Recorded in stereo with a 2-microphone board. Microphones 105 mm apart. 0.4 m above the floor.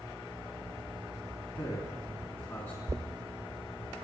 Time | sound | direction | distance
1.6 | a man speaking | 25° left (ahead or behind) | 3.5 m
2.9 | knocking | 30° right (ahead or behind) | 0.7 m